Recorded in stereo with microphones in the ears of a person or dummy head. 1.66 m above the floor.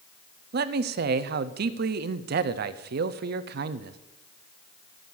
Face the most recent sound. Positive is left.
turn(degrees=-50)  # may be behind; listen again after turning